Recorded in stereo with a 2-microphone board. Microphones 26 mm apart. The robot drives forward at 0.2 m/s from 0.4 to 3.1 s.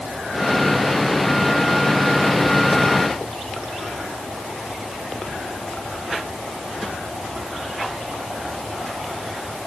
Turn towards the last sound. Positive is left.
No sound to turn to.